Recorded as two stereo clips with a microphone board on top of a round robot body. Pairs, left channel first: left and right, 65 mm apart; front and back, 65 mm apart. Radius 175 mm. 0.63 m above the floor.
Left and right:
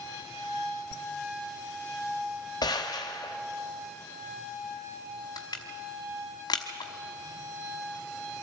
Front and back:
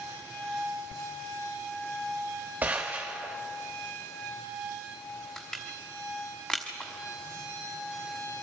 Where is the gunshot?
115° left, 0.8 m.